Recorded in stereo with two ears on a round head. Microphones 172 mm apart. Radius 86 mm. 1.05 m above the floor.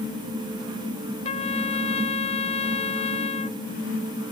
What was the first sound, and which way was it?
A trumpet, 30° left (ahead or behind).